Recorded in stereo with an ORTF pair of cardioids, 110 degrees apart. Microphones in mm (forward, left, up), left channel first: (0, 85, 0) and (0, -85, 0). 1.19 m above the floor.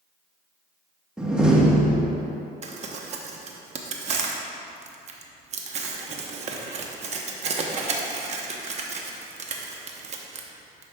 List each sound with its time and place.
1.2 s a door slam: 5° right, 1.1 m
2.6 s crumpling: 45° right, 0.8 m